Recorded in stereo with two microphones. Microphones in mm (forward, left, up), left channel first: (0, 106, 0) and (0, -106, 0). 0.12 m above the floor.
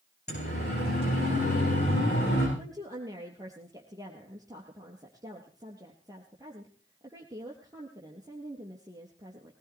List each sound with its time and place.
0.3 s a siren: 50° left (ahead or behind), 9.5 m; by 2.5 s 55° left (ahead or behind), 10.5 m
2.6 s a woman speaking: 15° right (ahead or behind), 3 m